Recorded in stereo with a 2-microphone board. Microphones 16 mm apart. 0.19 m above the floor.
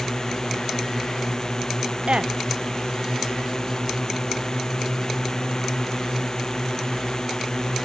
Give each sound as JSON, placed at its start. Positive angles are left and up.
{"t": 0.0, "sound": "a drone", "side_deg": 35}
{"t": 2.1, "sound": "a woman speaking", "side_deg": -65}